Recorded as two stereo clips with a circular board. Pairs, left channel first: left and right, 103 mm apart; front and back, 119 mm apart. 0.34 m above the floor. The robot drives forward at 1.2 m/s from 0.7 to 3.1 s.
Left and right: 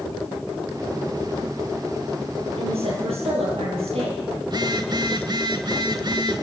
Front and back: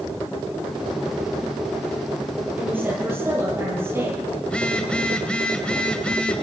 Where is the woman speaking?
105° right, 9.5 m; by 4.2 s 110° right, 9.5 m.